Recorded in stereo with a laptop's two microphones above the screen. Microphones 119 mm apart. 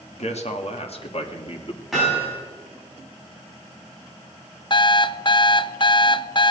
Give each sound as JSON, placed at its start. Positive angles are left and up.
{"t": 0.1, "sound": "a man speaking", "side_deg": 65, "distance_m": 2.0}
{"t": 1.9, "sound": "hammering", "side_deg": 0, "distance_m": 7.5}
{"t": 4.7, "sound": "an alarm clock", "side_deg": 40, "distance_m": 0.6}